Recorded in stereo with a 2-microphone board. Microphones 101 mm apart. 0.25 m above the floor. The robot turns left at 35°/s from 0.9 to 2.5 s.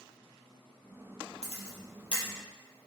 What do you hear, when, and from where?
1.4 s a camera shutter: 80° left, 4 m; by 2.2 s 65° left (ahead or behind), 4 m